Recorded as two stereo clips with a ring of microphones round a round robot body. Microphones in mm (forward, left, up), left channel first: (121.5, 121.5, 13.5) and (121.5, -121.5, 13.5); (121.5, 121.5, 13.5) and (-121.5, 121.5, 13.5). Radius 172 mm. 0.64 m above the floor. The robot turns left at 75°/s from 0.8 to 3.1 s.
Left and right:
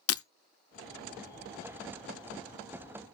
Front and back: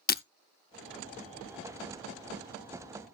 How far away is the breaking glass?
About 0.6 m.